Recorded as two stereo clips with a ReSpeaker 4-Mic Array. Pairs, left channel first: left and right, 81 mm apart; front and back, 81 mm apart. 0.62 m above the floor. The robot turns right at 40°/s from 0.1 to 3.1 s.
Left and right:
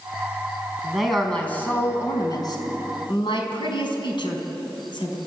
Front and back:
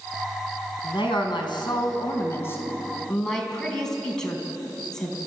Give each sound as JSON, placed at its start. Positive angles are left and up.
{"t": 0.8, "sound": "a woman speaking", "azimuth_deg": -10, "distance_m": 4.0}